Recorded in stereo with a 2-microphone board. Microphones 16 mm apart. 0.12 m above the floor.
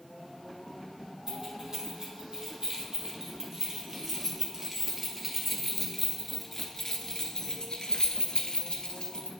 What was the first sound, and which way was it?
Keys jangling, 35° right (ahead or behind).